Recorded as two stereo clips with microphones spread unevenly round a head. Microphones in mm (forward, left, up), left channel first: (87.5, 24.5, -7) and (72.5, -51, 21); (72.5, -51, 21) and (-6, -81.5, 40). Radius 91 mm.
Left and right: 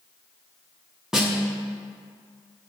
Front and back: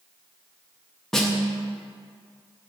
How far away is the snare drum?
About 0.7 m.